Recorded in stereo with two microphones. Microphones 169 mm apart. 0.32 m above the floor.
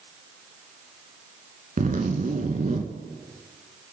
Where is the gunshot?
No gunshot in this recording.